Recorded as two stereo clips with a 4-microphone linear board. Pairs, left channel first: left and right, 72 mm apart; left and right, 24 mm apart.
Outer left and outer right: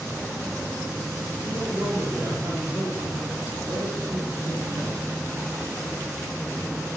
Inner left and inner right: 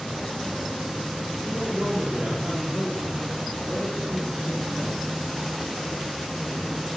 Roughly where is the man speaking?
Right.